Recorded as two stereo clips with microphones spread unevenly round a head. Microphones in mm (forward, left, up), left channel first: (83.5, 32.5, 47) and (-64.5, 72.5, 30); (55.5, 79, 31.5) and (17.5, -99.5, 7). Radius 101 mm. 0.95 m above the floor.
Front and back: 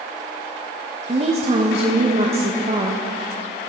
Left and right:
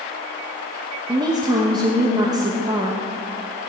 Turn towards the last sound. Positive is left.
turn(degrees=-160)